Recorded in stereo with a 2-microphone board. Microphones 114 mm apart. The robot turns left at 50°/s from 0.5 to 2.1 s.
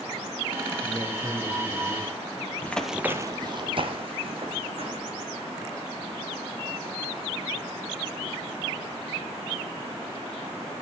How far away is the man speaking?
About 6.5 m.